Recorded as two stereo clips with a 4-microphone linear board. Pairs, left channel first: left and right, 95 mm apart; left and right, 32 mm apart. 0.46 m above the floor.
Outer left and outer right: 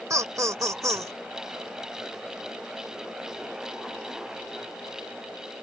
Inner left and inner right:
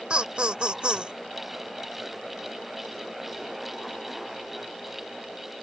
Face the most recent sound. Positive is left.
turn(degrees=-40)  # may be behind; listen again after turning